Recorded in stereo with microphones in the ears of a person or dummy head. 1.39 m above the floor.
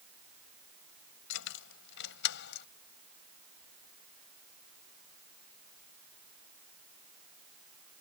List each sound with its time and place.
1.3 s keys jangling: 70° left (ahead or behind); by 2.7 s 65° left (ahead or behind)